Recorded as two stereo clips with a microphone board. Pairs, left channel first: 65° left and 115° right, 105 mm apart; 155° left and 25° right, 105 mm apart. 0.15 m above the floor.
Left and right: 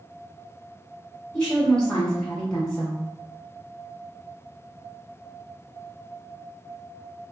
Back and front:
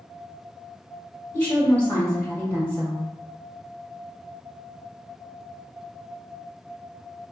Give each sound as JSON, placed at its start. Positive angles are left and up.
{"t": 1.3, "sound": "a woman speaking", "azimuth_deg": 130, "distance_m": 1.3}